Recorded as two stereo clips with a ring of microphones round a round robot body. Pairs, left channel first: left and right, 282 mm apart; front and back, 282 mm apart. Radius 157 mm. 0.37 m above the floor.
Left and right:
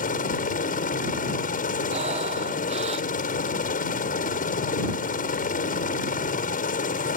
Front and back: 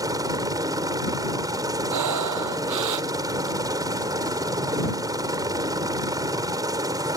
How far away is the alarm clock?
No alarm clock in this recording.